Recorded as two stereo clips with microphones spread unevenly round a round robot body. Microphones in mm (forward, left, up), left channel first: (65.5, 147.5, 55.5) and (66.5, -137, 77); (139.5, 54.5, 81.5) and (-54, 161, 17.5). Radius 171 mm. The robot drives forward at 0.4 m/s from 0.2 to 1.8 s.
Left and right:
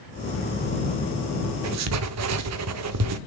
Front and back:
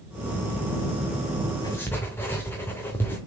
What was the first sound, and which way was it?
Writing, 115° right.